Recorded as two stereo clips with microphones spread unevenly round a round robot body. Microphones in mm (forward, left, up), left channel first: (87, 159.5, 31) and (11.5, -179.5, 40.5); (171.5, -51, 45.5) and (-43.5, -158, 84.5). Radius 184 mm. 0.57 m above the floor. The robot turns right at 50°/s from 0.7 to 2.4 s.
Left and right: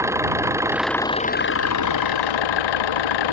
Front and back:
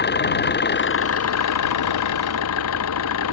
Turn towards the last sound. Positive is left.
turn(degrees=65)